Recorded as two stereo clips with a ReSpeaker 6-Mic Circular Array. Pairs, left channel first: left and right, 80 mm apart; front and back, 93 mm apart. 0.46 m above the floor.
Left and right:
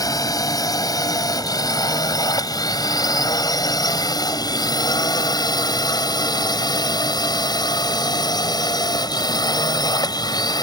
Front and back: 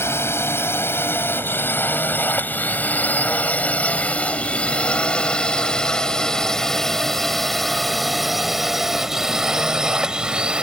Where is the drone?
60° left; by 10.6 s 100° left.